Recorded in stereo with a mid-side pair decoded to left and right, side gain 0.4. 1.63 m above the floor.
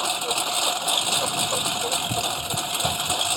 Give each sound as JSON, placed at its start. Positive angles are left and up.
{"t": 0.0, "sound": "a lawn mower", "azimuth_deg": 0}